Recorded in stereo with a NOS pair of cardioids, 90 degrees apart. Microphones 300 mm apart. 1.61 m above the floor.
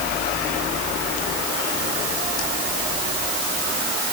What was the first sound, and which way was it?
Only background noise.